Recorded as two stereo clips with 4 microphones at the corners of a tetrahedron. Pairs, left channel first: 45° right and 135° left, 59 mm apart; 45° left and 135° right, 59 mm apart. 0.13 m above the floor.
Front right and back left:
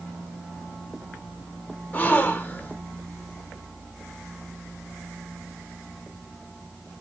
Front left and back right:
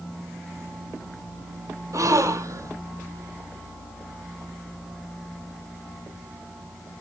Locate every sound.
1.9 s a gasp: 105° right, 1.5 m